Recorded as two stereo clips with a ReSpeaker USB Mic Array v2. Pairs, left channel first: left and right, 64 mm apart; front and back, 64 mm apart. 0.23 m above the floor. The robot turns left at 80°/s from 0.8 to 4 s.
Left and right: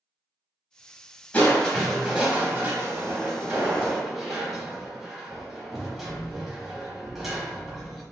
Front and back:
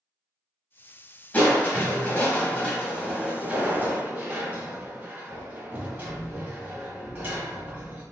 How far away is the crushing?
About 1.0 m.